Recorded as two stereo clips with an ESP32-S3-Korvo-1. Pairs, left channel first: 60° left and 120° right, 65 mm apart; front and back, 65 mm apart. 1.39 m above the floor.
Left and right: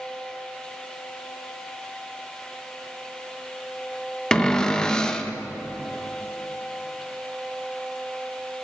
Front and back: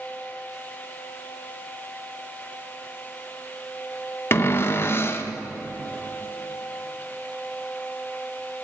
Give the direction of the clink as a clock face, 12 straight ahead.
I don't hear a clink.